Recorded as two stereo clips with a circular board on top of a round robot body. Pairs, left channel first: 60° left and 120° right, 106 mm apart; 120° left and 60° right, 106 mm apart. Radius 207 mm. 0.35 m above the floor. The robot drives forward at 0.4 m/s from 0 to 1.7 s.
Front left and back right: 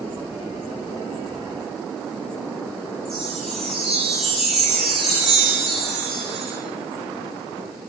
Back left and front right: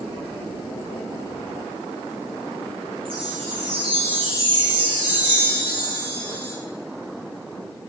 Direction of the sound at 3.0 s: 25° right.